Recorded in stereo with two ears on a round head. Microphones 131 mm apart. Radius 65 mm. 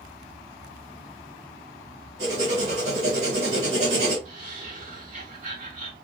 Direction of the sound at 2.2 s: 50° right (ahead or behind).